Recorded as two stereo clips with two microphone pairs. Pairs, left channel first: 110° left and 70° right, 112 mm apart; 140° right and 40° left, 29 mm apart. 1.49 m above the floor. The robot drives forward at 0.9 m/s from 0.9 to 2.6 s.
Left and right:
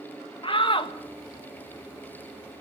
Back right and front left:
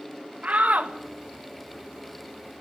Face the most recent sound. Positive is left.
turn(degrees=120)